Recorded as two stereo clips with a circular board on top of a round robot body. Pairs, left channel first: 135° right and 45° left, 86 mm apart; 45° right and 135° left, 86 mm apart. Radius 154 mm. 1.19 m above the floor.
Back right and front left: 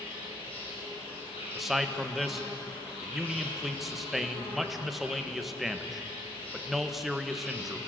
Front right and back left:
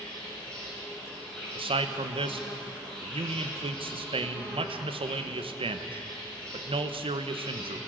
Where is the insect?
125° right, 8 m.